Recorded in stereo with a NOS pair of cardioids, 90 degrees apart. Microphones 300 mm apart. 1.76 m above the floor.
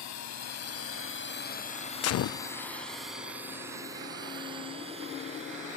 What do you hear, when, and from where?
0.0 s a drone: 70° left; by 5.8 s 25° right
2.0 s a gunshot: 55° left